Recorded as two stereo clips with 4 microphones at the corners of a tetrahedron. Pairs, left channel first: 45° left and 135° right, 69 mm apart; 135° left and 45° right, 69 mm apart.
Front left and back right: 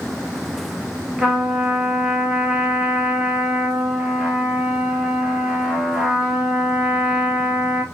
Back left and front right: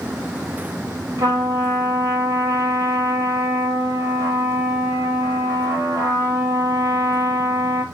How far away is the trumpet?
About 1.3 m.